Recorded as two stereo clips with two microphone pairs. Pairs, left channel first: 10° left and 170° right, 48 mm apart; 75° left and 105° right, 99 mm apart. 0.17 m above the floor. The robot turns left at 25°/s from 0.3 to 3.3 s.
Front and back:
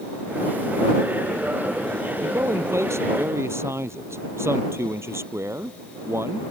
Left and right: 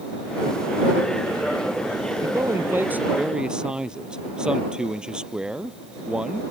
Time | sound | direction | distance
2.2 | a man speaking | 160° right | ?